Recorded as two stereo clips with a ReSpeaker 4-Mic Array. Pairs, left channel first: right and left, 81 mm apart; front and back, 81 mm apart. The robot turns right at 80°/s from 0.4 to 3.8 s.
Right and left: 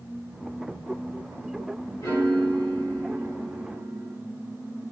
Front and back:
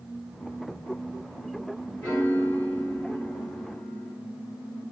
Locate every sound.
2.0 s a piano: 70° right, 1.8 m; by 4.2 s 75° left, 1.8 m